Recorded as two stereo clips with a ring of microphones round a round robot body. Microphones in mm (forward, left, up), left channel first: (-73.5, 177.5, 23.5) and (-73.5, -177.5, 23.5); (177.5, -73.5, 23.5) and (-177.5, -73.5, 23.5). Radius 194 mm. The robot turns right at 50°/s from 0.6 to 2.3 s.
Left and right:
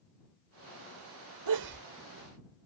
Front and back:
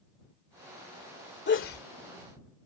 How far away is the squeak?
No squeak in this recording.